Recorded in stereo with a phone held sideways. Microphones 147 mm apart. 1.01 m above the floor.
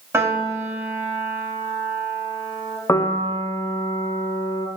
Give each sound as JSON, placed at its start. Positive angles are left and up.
{"t": 0.1, "sound": "a piano", "side_deg": -20, "distance_m": 1.0}
{"t": 2.9, "sound": "a piano", "side_deg": 20, "distance_m": 0.5}